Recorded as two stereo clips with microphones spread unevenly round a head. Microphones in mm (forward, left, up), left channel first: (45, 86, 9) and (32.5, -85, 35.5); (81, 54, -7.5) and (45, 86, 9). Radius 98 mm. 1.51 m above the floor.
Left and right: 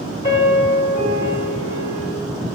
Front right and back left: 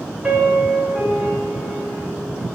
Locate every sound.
0.2 s a piano: 145° left, 1.4 m